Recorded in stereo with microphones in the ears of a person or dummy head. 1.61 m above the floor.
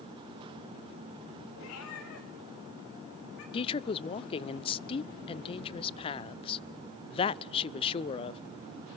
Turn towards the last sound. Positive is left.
turn(degrees=30)  # may be behind; listen again after turning